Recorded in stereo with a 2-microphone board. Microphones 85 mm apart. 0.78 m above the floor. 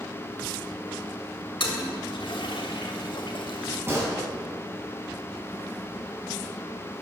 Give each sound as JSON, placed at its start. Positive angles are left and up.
{"t": 1.6, "sound": "a toilet flushing", "side_deg": 70, "distance_m": 2.0}
{"t": 3.9, "sound": "a gunshot", "side_deg": -30, "distance_m": 7.0}